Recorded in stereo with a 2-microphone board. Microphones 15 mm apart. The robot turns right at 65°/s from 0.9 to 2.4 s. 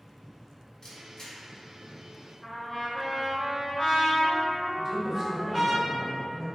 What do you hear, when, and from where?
0.8 s a camera shutter: 40° left (ahead or behind), 1.2 m; by 1.4 s 35° left (ahead or behind), 1.2 m
2.4 s a trumpet: 10° left (ahead or behind), 1.1 m
4.8 s a woman speaking: 15° right (ahead or behind), 1.6 m